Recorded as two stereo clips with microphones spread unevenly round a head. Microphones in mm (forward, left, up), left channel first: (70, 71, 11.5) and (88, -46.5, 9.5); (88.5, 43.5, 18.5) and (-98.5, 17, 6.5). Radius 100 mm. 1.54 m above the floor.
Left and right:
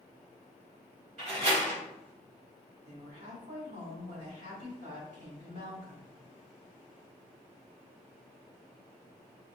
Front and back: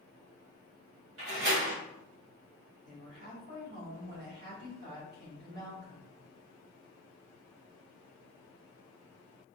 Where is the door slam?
130° right, 2 m.